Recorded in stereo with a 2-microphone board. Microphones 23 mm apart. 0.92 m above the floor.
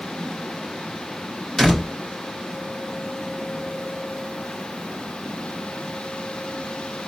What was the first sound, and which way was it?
A door slam, 20° left (ahead or behind).